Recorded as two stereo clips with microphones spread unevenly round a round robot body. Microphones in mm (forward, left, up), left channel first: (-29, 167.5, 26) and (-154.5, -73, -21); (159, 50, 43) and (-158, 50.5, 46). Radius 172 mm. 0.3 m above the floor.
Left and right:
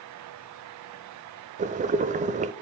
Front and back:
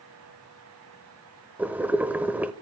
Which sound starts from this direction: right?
Boiling, at 1.6 s.